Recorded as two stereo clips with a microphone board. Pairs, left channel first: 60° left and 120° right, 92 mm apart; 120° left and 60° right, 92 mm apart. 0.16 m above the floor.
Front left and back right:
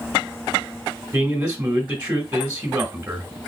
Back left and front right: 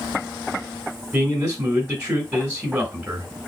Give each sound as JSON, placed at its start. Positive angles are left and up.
{"t": 1.1, "sound": "a man speaking", "azimuth_deg": -115, "distance_m": 1.6}